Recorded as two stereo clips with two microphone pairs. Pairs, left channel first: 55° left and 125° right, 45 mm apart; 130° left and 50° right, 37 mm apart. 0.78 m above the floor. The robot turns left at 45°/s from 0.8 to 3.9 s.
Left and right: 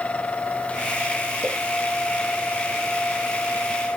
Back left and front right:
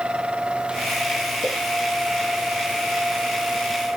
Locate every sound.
1.4 s a pop: 65° right, 0.9 m; by 1.6 s 70° right, 0.9 m